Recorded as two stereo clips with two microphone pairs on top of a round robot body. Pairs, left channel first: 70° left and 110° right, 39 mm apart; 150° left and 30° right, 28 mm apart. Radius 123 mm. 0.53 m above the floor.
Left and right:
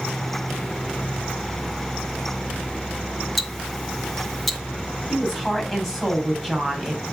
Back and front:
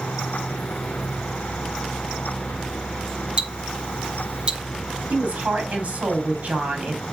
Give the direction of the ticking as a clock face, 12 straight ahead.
1 o'clock.